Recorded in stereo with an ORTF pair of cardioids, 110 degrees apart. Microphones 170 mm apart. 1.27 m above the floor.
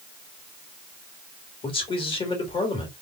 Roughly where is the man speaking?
Ahead left.